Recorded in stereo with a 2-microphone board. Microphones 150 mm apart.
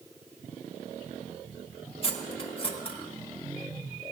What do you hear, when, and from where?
2.0 s cutlery clinking: 40° left (ahead or behind), 0.9 m